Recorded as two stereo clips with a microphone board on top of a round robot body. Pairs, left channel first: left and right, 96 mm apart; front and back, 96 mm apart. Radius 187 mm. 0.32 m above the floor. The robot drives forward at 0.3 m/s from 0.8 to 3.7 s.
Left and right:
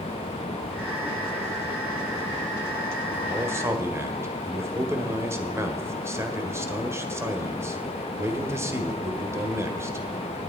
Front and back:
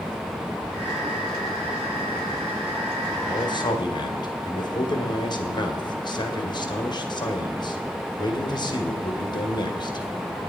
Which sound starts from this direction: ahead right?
A man speaking, at 3.3 s.